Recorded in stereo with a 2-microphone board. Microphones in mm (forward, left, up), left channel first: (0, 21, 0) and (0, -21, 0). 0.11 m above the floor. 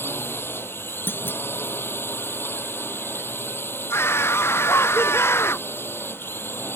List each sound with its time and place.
0.0 s a drone: 65° left (ahead or behind)
1.1 s a clunk: 60° left (ahead or behind)
3.9 s a scream: 85° left